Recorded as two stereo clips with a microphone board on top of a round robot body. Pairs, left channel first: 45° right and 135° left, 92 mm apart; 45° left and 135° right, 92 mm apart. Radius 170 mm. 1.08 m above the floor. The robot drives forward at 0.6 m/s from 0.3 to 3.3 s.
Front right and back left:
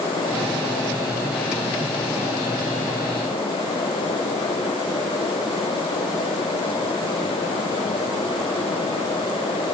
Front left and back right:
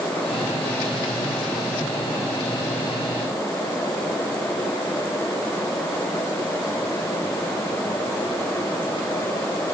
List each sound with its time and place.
Only background noise.